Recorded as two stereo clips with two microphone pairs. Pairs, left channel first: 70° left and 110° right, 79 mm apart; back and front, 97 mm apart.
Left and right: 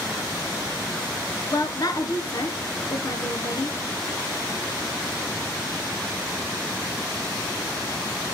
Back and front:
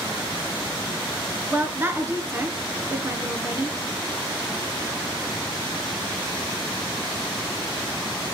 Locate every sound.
1.5 s a woman speaking: 60° left, 1.8 m